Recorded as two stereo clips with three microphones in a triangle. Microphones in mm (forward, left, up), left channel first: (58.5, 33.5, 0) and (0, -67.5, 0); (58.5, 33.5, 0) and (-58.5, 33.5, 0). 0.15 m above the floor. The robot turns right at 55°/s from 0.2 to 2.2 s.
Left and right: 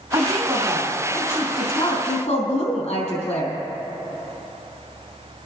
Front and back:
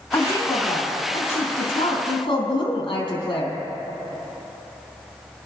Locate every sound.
0.1 s a woman speaking: 65° right, 4 m; by 3.6 s 45° left, 4 m